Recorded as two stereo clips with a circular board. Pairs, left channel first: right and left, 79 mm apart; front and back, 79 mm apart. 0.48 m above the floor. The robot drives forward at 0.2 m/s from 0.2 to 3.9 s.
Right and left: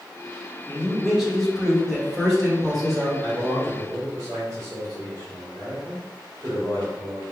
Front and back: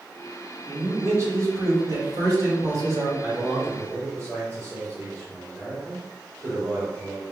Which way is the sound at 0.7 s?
175° left.